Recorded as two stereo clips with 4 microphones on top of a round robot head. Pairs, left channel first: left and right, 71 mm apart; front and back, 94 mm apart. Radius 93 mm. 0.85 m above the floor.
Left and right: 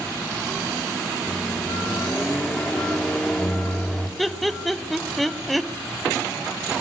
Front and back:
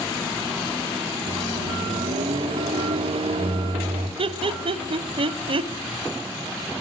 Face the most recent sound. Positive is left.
turn(degrees=180)